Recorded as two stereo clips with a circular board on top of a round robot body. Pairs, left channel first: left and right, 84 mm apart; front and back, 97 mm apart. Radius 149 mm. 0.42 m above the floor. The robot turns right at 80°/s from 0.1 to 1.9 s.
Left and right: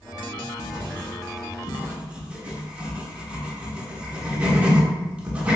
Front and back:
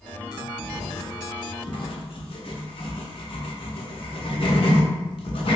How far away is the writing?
About 0.9 m.